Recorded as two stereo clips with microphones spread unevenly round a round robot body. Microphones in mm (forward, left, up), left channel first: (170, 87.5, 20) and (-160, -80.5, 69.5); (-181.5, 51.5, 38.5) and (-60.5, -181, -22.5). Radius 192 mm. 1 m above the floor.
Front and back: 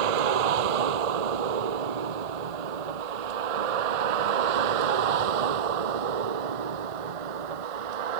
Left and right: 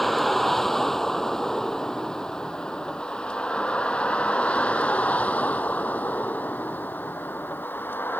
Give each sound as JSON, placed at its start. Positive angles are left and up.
{"t": 0.0, "sound": "a vehicle", "azimuth_deg": -155}